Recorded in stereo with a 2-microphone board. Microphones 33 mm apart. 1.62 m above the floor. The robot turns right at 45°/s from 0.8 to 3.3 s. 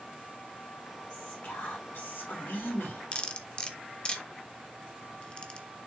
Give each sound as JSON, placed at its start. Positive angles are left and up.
{"t": 1.1, "sound": "whispering", "azimuth_deg": 30, "distance_m": 2.5}
{"t": 3.1, "sound": "cutlery clinking", "side_deg": 35, "distance_m": 1.2}